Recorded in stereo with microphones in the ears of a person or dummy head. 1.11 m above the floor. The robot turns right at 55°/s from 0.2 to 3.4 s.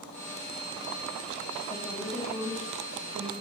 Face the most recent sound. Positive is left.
turn(degrees=-115)